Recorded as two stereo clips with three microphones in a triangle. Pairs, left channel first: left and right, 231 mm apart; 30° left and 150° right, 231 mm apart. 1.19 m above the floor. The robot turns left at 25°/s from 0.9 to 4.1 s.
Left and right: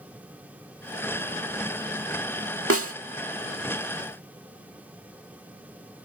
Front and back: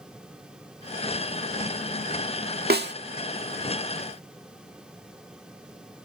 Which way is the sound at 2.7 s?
105° right.